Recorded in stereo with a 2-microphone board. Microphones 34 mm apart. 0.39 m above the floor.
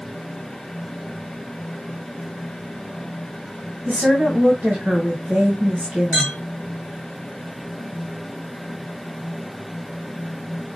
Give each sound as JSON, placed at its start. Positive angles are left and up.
{"t": 3.9, "sound": "a woman speaking", "side_deg": -65, "distance_m": 2.0}
{"t": 6.1, "sound": "a clink", "side_deg": -65, "distance_m": 3.0}